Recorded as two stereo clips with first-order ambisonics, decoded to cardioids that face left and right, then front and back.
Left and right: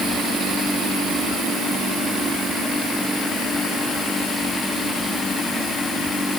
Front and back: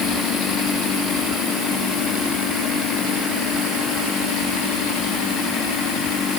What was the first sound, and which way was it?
Only background noise.